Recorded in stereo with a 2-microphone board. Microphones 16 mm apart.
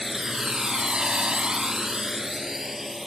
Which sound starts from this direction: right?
A drone, at 0.0 s.